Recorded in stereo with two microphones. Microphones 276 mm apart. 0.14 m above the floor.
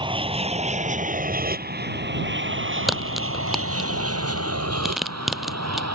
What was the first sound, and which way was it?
An aircraft, 20° right (ahead or behind).